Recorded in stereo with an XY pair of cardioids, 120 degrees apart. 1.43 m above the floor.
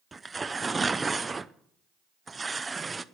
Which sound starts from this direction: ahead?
Tearing paper, at 0.1 s.